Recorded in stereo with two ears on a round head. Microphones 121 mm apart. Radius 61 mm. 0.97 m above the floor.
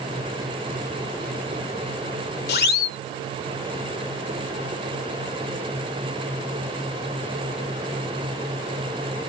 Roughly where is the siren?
Left.